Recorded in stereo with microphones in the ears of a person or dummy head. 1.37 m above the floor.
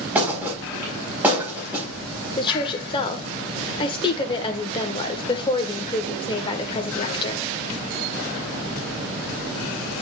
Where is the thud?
10° right (ahead or behind), 4 m.